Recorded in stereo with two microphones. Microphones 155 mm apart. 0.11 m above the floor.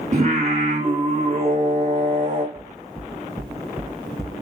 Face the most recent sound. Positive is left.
turn(degrees=0)  # may be behind; listen again after turning